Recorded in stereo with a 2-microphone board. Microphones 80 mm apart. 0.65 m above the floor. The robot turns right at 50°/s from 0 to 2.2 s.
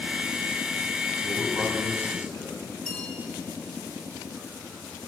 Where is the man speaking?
15° right, 3.5 m; by 2.5 s 35° left, 3.5 m.